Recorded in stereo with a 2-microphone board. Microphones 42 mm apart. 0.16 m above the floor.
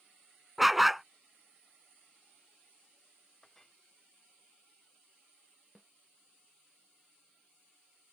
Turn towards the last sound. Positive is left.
turn(degrees=-10)  # may be behind; listen again after turning